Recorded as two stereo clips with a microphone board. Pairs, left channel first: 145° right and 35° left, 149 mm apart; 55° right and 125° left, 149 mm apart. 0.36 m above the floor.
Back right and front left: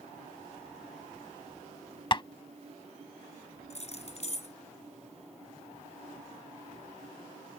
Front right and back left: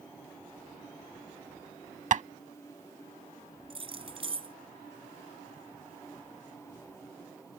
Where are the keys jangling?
175° left.